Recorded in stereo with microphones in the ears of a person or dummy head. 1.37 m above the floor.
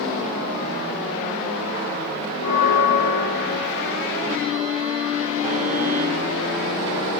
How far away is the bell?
About 2 m.